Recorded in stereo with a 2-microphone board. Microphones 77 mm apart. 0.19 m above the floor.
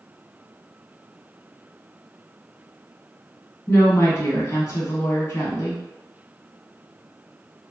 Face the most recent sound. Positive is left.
turn(degrees=40)  # may be behind; listen again after turning